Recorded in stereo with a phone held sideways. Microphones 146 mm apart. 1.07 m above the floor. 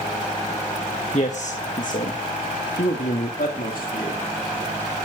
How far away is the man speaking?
About 1.0 m.